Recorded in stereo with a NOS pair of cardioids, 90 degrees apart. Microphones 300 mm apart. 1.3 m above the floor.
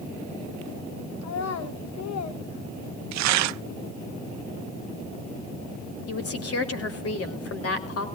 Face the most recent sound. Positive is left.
turn(degrees=50)